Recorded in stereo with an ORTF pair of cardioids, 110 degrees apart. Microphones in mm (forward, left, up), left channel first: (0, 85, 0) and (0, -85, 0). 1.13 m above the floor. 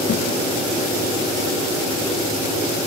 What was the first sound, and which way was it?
A thud, 55° left.